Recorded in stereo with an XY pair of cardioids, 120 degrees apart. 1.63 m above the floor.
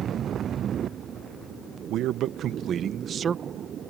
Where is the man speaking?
70° right; by 3.9 s 30° right.